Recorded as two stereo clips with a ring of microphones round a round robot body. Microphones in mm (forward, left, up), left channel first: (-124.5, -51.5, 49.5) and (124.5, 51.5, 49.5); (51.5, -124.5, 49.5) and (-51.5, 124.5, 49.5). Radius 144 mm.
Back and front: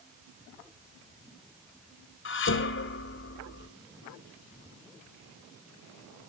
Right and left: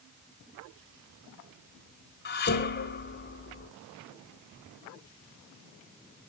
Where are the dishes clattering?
115° right, 1.5 m.